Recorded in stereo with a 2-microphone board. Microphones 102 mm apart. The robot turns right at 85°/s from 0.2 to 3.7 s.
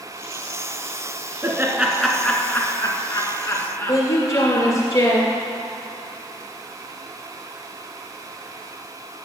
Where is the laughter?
30° right (ahead or behind), 1.7 m; by 4.8 s 20° left (ahead or behind), 1.7 m.